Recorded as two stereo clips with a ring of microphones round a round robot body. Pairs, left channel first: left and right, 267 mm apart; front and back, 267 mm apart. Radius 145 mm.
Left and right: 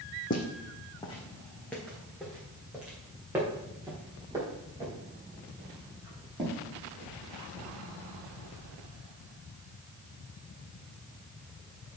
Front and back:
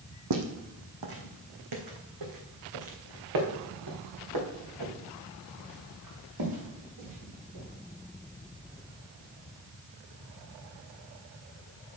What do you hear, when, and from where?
0.3 s footsteps: 150° left, 1.6 m; by 7.7 s 165° right, 6.5 m